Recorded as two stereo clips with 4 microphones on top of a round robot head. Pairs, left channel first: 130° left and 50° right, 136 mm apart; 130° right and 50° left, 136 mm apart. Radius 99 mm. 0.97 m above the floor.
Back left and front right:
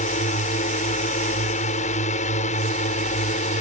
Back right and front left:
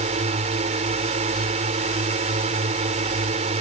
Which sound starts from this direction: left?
A drone, at 0.0 s.